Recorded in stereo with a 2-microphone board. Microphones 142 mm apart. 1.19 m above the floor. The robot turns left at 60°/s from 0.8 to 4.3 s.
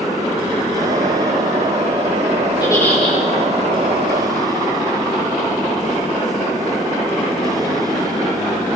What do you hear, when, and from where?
2.6 s a giggle: 30° left, 5 m; by 3.2 s 5° right, 5 m